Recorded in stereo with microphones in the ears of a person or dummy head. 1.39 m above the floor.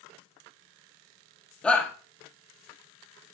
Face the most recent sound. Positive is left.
turn(degrees=5)  # may be behind; listen again after turning